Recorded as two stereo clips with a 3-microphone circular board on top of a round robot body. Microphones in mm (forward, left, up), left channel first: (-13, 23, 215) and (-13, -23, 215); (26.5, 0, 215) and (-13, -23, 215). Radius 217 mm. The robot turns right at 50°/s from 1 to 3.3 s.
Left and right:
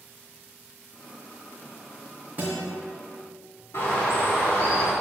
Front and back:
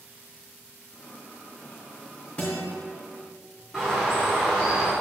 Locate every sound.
2.4 s a guitar: 35° right, 2.5 m; by 2.7 s 20° right, 2.5 m
3.7 s a bird: 115° left, 0.6 m